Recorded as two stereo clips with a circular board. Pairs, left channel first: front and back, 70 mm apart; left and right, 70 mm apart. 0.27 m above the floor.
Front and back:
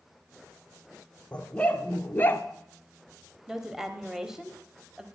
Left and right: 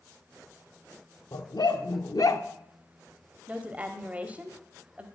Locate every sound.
1.3 s a dog barking: 75° left, 1.4 m; by 2.5 s 55° left, 0.8 m
3.5 s a woman speaking: 105° right, 1.1 m